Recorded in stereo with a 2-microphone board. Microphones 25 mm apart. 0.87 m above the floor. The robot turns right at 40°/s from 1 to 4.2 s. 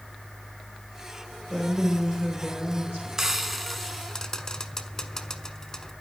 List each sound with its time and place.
1.5 s a woman speaking: 175° right, 3 m; by 3.1 s 115° right, 3 m
3.2 s frying: 20° right (ahead or behind), 1.2 m; by 5.9 s 20° left (ahead or behind), 1.2 m